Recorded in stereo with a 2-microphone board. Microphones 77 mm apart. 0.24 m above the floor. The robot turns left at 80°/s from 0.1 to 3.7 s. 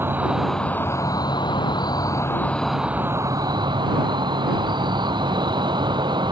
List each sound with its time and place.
0.0 s an insect: 150° right; by 6.3 s 80° right